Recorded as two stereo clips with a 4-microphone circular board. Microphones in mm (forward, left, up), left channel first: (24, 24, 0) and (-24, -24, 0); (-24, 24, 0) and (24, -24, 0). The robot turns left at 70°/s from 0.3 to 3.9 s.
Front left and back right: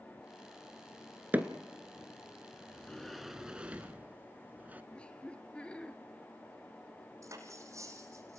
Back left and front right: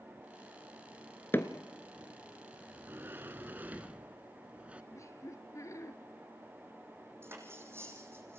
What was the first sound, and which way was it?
Hammering, 175° left.